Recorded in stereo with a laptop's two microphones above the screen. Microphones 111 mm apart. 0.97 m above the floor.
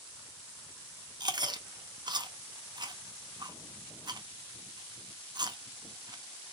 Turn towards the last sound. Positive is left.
turn(degrees=-40)  # may be behind; listen again after turning